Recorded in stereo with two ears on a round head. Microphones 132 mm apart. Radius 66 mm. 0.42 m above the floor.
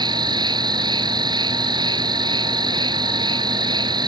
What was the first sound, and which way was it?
An insect, 30° right (ahead or behind).